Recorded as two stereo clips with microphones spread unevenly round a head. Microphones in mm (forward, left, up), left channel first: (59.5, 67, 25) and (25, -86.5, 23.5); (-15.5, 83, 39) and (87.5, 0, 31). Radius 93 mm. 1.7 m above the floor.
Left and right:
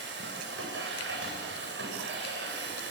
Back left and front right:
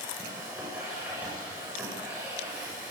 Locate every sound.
0.0 s a machine running: 120° right, 8 m